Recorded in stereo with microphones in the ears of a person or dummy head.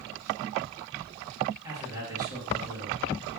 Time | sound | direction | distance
1.6 | a man speaking | 20° right (ahead or behind) | 1.8 m